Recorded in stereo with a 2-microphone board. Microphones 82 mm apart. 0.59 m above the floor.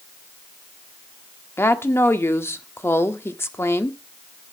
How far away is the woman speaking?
About 1.3 m.